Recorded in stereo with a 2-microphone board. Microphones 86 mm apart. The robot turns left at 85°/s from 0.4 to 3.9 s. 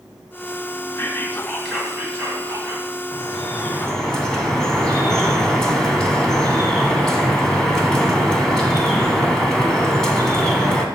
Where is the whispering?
60° left, 1.6 m; by 2.9 s 105° right, 1.6 m.